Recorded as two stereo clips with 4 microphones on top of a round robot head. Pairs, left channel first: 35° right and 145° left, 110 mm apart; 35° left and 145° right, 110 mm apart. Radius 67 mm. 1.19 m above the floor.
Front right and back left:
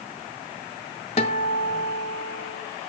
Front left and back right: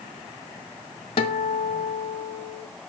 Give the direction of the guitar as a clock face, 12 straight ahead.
12 o'clock.